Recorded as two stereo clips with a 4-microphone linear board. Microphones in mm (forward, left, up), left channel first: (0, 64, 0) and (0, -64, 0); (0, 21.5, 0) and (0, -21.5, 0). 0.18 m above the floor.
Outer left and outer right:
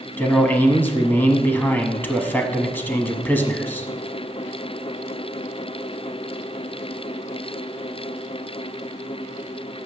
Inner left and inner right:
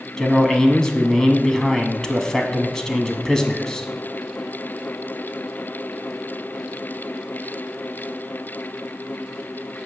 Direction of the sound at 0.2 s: 15° left (ahead or behind).